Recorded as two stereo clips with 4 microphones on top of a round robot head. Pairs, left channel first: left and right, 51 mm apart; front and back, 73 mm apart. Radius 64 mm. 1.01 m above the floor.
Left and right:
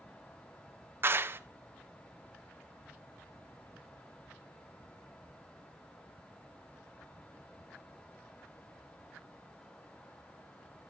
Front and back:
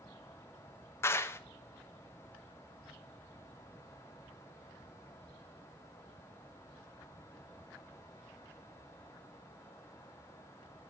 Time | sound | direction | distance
1.0 | a clap | 55° right | 0.8 m